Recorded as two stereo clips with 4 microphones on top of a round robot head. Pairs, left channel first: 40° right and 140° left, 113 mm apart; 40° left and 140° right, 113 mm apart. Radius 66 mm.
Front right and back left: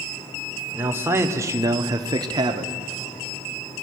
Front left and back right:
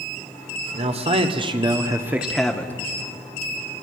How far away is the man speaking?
About 2 m.